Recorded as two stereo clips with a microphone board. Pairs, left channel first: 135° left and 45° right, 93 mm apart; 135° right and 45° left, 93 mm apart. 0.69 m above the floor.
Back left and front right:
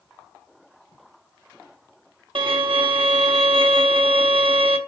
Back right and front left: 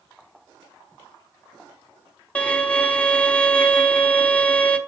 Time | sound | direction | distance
2.4 | a violin | 60° right | 0.9 m